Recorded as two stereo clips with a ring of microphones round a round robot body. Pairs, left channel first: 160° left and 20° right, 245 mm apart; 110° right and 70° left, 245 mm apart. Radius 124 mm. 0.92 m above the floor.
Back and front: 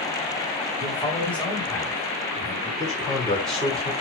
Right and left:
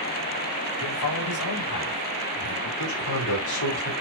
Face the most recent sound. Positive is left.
turn(degrees=-115)